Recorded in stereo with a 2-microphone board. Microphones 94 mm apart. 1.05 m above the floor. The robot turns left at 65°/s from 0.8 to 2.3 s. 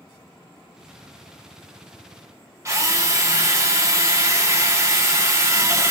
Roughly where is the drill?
Right.